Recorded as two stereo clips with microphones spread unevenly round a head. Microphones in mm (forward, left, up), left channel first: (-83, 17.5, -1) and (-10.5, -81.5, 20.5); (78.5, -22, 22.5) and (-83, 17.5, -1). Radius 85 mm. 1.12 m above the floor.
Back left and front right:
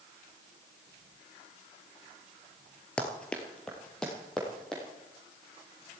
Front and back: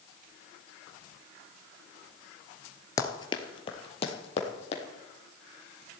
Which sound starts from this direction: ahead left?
Running footsteps, at 3.0 s.